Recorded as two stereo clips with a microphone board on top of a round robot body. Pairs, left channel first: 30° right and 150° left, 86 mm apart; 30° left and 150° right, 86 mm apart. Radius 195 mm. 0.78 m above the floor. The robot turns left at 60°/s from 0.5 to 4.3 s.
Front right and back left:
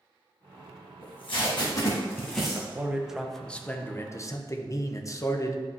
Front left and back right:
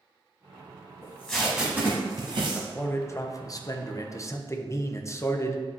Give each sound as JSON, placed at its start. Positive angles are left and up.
{"t": 1.0, "sound": "tape being pulled", "azimuth_deg": -35, "distance_m": 1.1}
{"t": 2.4, "sound": "a man speaking", "azimuth_deg": 110, "distance_m": 1.0}